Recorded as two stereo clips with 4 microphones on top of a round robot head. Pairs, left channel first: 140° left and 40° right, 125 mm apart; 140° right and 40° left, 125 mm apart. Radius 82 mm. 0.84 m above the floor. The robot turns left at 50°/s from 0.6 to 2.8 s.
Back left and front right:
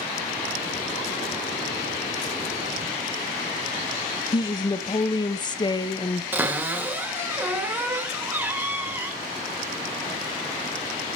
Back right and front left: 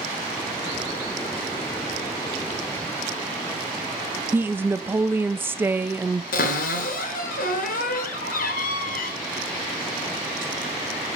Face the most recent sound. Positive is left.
turn(degrees=-115)